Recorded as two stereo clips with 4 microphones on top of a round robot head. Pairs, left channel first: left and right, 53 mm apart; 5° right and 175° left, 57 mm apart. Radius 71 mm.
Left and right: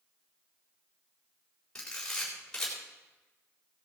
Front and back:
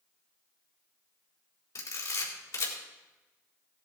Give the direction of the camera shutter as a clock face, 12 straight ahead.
12 o'clock.